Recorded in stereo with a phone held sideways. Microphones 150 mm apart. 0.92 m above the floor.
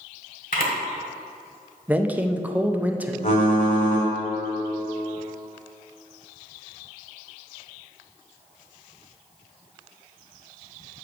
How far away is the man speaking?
About 0.5 m.